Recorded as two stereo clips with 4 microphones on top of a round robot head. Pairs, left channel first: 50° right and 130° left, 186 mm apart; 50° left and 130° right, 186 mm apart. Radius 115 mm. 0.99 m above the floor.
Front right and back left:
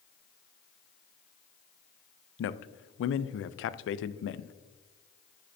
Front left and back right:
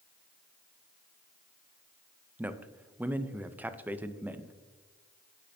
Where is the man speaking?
50° right, 0.5 m.